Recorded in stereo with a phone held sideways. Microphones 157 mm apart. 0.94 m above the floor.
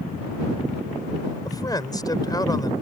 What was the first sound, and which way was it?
A man speaking, 25° left (ahead or behind).